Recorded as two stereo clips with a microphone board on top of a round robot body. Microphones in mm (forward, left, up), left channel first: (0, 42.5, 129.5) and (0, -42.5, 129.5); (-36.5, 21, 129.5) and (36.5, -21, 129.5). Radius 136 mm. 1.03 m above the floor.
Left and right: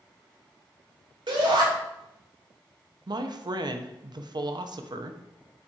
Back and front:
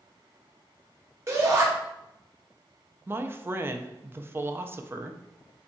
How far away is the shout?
About 1.8 m.